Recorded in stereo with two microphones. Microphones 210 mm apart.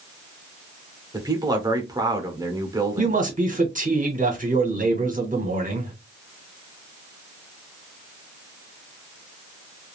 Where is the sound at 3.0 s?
40° right (ahead or behind), 1.1 m.